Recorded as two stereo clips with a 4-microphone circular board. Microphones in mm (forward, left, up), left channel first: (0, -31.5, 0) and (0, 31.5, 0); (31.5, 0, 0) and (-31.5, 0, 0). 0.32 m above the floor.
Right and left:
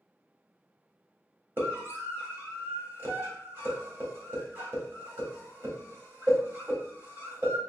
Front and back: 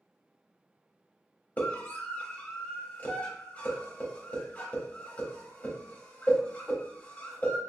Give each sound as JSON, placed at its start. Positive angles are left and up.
{"t": 1.6, "sound": "a scream", "azimuth_deg": 55, "distance_m": 1.5}